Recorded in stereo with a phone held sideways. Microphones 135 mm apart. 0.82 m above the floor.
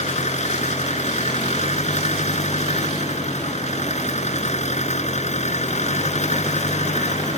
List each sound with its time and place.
0.0 s an engine running: 55° left (ahead or behind)